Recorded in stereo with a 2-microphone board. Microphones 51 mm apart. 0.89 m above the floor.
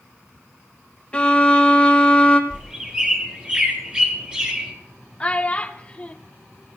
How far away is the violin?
About 0.8 m.